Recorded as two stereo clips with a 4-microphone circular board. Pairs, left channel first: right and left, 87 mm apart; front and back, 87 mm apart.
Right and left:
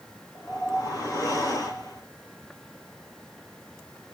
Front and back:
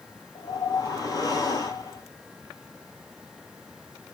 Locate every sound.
0.3 s a whoosh: 45° right, 1.3 m